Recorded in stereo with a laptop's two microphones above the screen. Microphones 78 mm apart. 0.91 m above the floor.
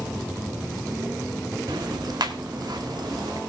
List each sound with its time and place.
1.7 s ticking: 70° right (ahead or behind), 1.6 m